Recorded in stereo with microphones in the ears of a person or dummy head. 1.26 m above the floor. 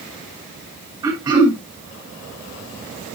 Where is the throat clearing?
20° right (ahead or behind), 6 m.